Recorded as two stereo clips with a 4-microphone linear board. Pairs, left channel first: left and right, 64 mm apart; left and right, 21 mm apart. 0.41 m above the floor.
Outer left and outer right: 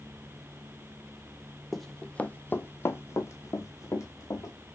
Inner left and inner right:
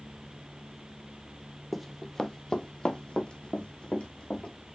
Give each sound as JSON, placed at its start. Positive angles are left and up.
{"t": 1.7, "sound": "running footsteps", "side_deg": 0, "distance_m": 0.5}